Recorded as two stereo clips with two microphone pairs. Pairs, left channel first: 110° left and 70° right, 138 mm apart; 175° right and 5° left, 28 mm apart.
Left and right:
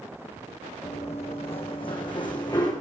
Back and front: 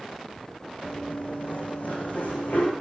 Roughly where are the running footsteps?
Behind left.